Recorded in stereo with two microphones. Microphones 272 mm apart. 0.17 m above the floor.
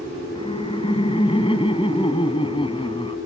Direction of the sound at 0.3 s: 20° left (ahead or behind).